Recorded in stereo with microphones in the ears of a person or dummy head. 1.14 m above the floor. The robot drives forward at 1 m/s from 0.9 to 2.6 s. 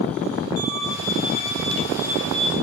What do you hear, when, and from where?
0.6 s a violin: 50° left (ahead or behind), 2.5 m; by 2.5 s 30° left (ahead or behind), 3.5 m